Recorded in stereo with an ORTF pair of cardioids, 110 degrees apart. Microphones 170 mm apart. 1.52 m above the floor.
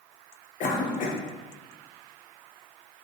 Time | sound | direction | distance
0.6 | a cough | 60° left | 1.2 m